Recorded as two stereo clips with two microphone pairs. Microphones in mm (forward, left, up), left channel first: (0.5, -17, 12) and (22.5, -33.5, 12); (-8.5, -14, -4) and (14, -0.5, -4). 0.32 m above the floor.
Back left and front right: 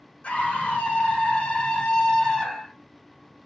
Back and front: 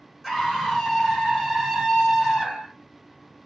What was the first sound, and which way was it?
A scream, 115° left.